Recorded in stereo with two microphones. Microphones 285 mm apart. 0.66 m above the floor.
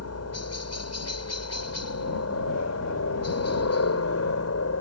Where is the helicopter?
60° left (ahead or behind).